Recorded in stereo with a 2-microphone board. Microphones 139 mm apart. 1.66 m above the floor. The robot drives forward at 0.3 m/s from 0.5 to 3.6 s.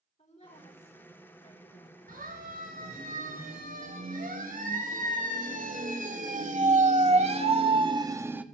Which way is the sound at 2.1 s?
80° right.